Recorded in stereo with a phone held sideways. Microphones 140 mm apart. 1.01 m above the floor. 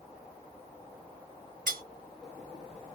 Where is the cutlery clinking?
85° right, 0.7 m.